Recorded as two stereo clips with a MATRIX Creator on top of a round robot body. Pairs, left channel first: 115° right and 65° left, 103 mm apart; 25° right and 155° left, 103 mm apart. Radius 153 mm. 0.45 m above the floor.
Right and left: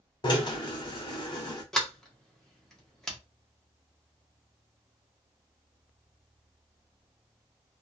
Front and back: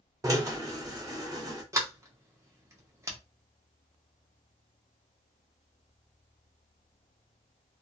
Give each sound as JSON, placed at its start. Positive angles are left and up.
{"t": 0.2, "sound": "a drill", "azimuth_deg": -150, "distance_m": 1.3}
{"t": 1.7, "sound": "a sliding door", "azimuth_deg": 165, "distance_m": 1.2}